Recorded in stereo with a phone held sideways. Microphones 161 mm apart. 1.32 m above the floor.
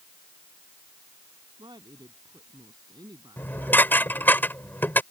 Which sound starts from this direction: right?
A woman speaking, at 1.6 s.